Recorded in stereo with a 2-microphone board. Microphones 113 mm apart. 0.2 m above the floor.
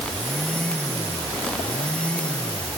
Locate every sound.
Only background noise.